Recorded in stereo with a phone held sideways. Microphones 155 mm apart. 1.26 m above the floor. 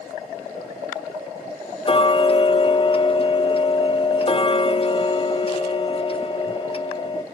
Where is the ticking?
35° left (ahead or behind), 0.5 m.